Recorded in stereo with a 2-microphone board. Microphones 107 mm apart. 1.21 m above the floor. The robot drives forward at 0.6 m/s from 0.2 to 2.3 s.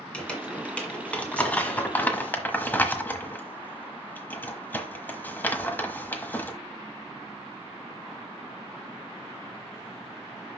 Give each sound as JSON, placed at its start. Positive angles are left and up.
{"t": 0.1, "sound": "crumpling", "side_deg": 10, "distance_m": 2.0}